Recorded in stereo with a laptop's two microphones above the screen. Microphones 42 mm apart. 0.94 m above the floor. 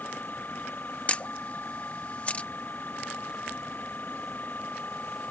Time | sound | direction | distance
0.0 | a machine running | 45° left (ahead or behind) | ?
1.1 | a camera shutter | 30° left (ahead or behind) | ?